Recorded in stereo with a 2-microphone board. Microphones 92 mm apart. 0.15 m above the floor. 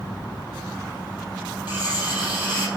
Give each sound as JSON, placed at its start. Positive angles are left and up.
{"t": 1.7, "sound": "cutlery clinking", "side_deg": -25, "distance_m": 2.5}